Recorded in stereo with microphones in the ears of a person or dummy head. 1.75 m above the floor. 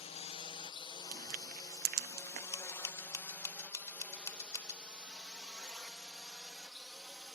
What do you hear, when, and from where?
0.0 s a drone: 30° left (ahead or behind); by 7.4 s centre (ahead or behind)
1.1 s crushing: 45° right (ahead or behind)
2.5 s scissors: 20° left (ahead or behind)